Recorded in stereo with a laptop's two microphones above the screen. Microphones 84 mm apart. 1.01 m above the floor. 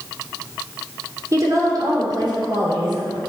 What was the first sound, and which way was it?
A woman speaking, 40° right (ahead or behind).